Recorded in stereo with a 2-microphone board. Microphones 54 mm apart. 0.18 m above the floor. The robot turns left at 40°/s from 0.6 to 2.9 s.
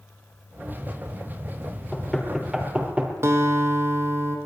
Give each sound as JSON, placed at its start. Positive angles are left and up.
{"t": 1.9, "sound": "knocking", "side_deg": 10, "distance_m": 3.5}
{"t": 3.2, "sound": "a guitar", "side_deg": -50, "distance_m": 2.5}